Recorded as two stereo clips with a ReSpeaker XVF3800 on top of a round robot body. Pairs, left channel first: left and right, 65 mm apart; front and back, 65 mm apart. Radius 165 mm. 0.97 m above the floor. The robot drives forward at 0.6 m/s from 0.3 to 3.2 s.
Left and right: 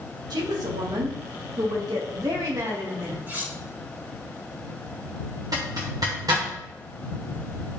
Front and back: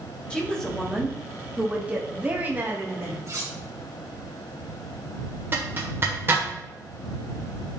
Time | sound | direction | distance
0.3 | a woman speaking | 75° right | 1.7 m
3.3 | cutlery clinking | 145° right | 2 m
5.5 | a zipper | 125° right | 1.4 m